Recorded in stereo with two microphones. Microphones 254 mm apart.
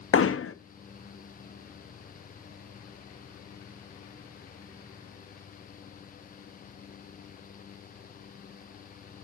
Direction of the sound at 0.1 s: 60° left (ahead or behind).